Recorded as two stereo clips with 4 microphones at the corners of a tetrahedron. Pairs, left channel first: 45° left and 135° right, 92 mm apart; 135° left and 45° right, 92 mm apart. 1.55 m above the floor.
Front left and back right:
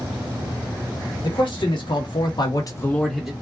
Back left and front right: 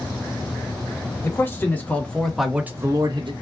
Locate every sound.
1.2 s a man speaking: 70° left, 1.4 m; by 3.3 s 50° right, 0.6 m